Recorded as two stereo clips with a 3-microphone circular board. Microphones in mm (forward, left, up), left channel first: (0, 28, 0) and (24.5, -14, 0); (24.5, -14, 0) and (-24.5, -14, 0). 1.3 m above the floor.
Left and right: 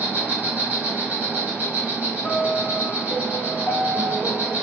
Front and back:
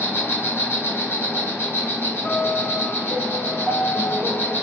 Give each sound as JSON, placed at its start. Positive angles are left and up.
{"t": 0.0, "sound": "an insect", "azimuth_deg": -10, "distance_m": 1.7}
{"t": 2.2, "sound": "a piano", "azimuth_deg": 55, "distance_m": 1.0}